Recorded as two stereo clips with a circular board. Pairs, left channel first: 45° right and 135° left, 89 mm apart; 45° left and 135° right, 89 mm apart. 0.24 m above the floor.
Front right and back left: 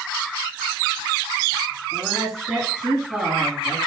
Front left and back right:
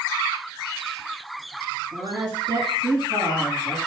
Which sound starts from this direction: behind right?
A woman speaking, at 1.9 s.